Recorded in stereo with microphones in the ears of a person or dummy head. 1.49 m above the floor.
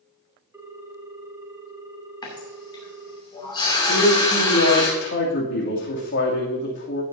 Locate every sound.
0.5 s a ringtone: 15° right (ahead or behind), 1.2 m
2.2 s a running tap: 25° left (ahead or behind), 2.5 m
3.9 s a man speaking: 65° left (ahead or behind), 3 m